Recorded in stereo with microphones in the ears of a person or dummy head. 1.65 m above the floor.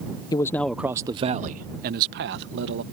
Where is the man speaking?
30° left (ahead or behind); by 2.8 s 65° right (ahead or behind).